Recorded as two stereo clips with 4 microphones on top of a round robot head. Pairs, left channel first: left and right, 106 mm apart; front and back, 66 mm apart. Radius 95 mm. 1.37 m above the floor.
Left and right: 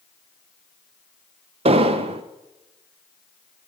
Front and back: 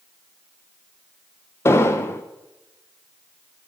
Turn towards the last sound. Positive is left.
turn(degrees=-55)